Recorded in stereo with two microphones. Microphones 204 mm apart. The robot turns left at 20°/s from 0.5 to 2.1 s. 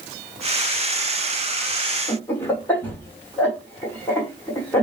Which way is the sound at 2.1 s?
10° left (ahead or behind).